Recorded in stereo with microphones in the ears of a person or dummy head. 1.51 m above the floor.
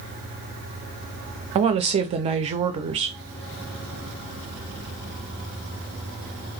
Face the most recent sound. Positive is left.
turn(degrees=-25)  # may be behind; listen again after turning